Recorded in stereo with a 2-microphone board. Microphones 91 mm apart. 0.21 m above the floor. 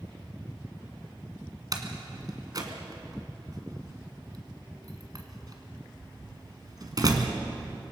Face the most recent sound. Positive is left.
turn(degrees=-45)  # may be behind; listen again after turning